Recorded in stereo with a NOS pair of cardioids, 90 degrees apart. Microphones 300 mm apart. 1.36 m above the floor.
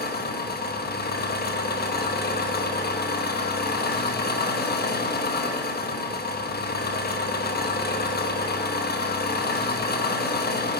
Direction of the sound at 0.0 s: 30° left.